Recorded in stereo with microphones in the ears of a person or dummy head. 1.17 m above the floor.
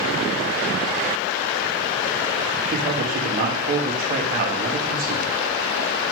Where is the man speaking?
45° right (ahead or behind), 1.9 m.